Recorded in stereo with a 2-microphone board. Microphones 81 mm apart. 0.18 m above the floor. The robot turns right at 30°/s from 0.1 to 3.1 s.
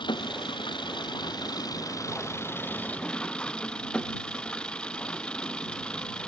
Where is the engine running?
75° left; by 6.3 s 165° left.